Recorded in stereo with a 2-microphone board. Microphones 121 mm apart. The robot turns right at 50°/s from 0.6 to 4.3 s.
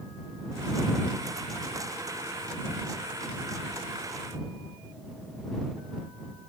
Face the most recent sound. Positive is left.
No sound to turn to.